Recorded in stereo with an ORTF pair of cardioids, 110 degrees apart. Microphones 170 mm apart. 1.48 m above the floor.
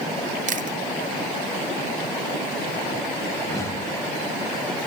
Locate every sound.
0.5 s chewing: 50° right, 0.8 m
3.4 s a whoosh: 15° left, 6.5 m